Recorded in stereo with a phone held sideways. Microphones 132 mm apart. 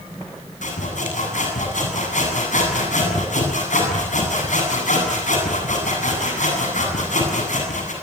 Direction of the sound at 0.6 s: 80° left.